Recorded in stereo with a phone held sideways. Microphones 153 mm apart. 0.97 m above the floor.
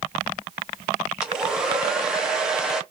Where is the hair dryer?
5° right (ahead or behind), 1.2 m.